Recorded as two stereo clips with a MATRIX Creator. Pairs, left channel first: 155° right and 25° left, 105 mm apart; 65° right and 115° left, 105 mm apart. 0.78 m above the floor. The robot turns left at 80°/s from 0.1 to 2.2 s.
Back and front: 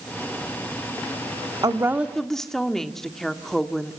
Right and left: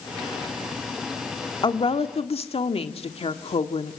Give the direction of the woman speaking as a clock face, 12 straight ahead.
1 o'clock.